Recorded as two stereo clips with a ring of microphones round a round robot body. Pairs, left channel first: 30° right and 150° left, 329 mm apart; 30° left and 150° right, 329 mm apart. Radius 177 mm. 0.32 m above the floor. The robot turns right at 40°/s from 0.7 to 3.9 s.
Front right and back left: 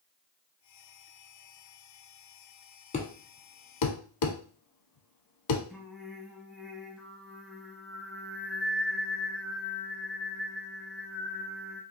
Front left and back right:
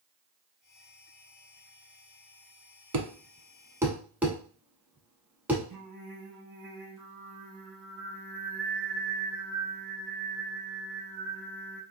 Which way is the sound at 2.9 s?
100° right.